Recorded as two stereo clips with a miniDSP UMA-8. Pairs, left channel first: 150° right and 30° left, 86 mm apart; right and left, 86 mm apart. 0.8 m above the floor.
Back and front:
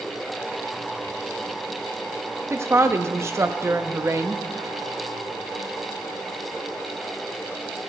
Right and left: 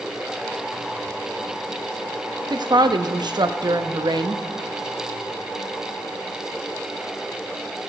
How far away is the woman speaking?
About 0.6 m.